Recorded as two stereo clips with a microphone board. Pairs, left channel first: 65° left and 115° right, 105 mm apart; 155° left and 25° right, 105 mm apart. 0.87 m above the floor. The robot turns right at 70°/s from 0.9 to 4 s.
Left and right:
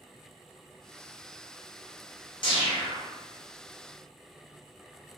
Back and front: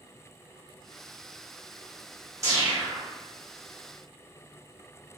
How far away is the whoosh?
About 0.9 m.